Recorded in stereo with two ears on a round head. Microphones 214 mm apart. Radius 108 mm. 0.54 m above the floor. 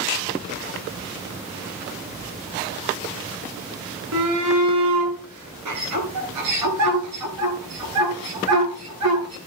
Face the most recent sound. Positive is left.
turn(degrees=-85)